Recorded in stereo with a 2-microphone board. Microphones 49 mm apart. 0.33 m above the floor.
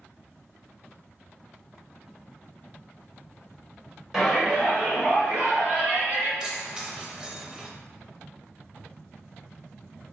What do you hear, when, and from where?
4.1 s a shout: 10° right (ahead or behind), 1.4 m; by 6.3 s 50° right (ahead or behind), 2.5 m
6.4 s keys jangling: 15° right (ahead or behind), 0.7 m